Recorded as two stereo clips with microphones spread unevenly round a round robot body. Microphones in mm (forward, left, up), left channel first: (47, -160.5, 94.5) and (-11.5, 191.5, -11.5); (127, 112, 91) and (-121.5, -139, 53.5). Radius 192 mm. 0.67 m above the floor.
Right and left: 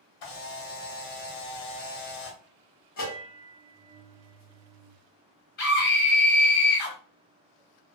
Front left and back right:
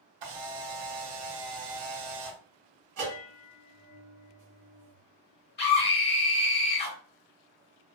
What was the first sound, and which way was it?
A camera shutter, 125° right.